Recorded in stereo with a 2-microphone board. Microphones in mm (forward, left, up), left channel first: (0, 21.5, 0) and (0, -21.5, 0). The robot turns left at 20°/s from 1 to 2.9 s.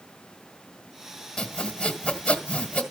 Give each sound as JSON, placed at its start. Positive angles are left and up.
{"t": 1.4, "sound": "sawing", "side_deg": 10, "distance_m": 1.5}